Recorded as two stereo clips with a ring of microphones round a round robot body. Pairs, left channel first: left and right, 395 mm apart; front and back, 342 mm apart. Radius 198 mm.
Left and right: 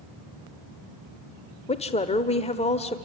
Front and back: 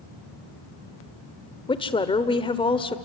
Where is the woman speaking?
45° left, 1.3 m.